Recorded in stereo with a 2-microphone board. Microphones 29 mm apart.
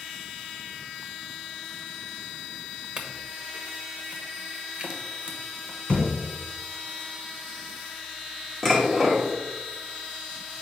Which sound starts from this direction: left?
A thud, at 5.9 s.